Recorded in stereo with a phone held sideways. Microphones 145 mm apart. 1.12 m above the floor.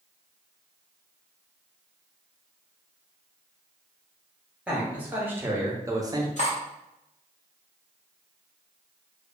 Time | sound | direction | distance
4.7 | a man speaking | 10° right (ahead or behind) | 1.1 m
6.4 | cutlery clinking | 55° left (ahead or behind) | 0.8 m